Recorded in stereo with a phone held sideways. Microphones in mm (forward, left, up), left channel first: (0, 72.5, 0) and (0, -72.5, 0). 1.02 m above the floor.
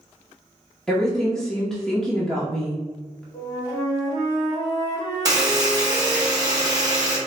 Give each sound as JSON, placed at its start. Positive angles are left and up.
{"t": 0.9, "sound": "a woman speaking", "side_deg": 5, "distance_m": 0.7}
{"t": 3.3, "sound": "a flute", "side_deg": 30, "distance_m": 1.5}
{"t": 5.2, "sound": "a buzzer", "side_deg": -30, "distance_m": 0.9}